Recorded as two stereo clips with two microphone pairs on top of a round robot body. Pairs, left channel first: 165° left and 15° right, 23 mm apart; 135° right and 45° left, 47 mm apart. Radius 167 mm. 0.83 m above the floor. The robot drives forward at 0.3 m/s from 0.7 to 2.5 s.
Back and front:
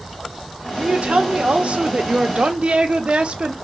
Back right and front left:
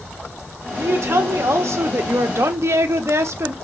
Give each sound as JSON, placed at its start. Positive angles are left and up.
{"t": 0.7, "sound": "a woman speaking", "azimuth_deg": 15, "distance_m": 1.4}